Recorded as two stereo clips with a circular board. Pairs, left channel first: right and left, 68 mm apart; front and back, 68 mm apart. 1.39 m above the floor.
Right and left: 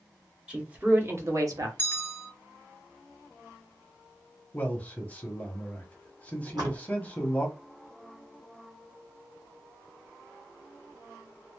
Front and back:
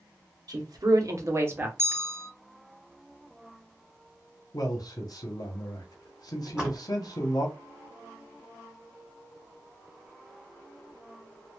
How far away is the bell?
About 0.8 m.